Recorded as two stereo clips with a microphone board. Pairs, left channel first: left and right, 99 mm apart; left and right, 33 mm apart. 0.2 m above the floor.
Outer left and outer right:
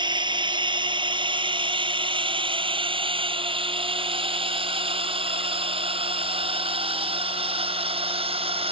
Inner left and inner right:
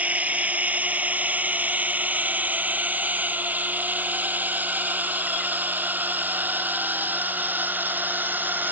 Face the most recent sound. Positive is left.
turn(degrees=-70)  # may be behind; listen again after turning